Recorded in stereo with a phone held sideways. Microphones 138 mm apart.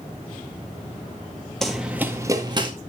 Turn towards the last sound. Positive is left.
turn(degrees=-35)  # may be behind; listen again after turning